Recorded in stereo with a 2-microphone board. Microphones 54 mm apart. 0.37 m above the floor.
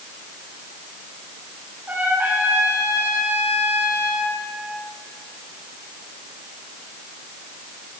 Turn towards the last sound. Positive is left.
turn(degrees=-35)  # may be behind; listen again after turning